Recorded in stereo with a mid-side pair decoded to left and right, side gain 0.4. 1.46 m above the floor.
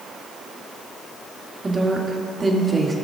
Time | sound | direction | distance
1.6 | a woman speaking | 25° right | 2.5 m